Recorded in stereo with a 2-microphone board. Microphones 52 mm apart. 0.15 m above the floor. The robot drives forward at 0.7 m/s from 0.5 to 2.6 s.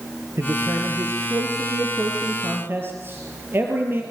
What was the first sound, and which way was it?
A man speaking, 60° right (ahead or behind).